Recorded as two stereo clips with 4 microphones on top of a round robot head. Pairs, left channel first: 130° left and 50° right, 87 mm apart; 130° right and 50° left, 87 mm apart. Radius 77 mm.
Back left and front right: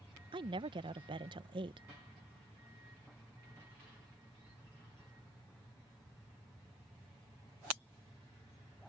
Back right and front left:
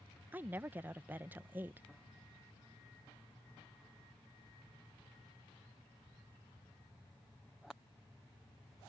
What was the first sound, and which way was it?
A woman speaking, 20° right.